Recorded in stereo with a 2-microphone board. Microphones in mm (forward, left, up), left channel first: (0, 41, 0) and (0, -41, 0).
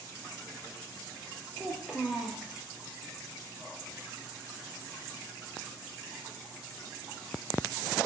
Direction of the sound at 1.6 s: 10° right (ahead or behind).